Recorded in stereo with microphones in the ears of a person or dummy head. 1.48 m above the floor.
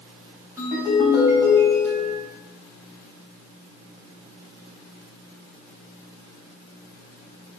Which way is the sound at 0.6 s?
10° right (ahead or behind).